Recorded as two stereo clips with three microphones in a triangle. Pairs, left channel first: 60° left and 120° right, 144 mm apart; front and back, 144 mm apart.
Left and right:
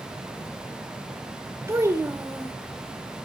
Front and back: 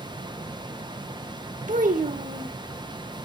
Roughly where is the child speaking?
Behind.